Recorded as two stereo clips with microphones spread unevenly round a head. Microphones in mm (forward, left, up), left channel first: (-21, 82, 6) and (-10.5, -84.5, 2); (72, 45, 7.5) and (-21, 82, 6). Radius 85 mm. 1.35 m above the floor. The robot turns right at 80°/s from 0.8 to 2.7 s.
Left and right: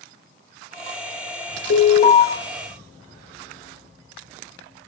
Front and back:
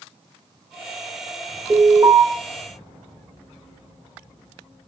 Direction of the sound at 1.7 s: 115° left.